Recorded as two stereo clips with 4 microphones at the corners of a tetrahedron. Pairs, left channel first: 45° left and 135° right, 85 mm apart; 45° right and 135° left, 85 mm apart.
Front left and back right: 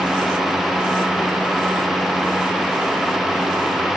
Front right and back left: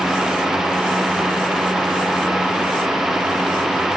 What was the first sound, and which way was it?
Only background noise.